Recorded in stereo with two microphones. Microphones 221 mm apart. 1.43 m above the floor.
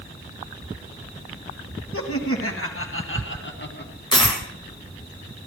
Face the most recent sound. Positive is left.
turn(degrees=20)  # may be behind; listen again after turning